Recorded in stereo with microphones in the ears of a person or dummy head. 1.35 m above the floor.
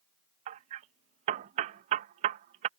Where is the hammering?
40° right (ahead or behind).